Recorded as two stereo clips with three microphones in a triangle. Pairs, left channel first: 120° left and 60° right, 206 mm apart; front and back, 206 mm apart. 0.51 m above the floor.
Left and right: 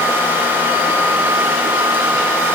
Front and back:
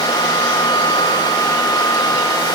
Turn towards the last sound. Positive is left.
No sound to turn to.